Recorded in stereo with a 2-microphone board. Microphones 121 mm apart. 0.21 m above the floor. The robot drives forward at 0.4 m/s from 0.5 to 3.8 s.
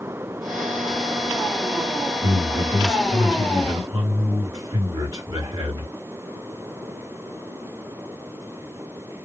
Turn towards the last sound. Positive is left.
turn(degrees=-30)  # may be behind; listen again after turning